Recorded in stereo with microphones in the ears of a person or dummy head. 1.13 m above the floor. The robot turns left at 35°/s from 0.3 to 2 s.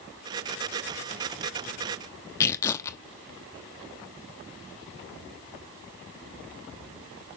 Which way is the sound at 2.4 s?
15° left (ahead or behind).